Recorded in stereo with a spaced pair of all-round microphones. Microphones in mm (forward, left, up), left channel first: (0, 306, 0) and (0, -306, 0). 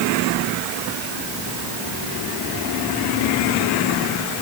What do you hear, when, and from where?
Only background noise.